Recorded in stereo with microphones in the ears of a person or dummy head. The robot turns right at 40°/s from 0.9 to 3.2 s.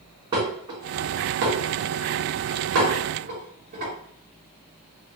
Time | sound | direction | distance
0.3 | dishes clattering | 30° right (ahead or behind) | 2.5 m